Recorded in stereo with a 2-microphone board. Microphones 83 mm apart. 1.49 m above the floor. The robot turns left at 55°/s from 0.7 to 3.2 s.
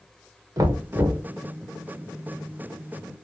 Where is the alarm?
No alarm in this recording.